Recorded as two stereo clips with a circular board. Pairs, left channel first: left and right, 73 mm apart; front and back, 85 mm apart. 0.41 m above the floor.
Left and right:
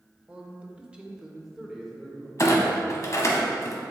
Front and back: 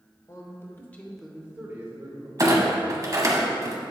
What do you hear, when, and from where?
0.3 s a man speaking: 25° right, 1.1 m; by 2.3 s 170° left, 1.1 m
2.4 s a clunk: 130° left, 1.0 m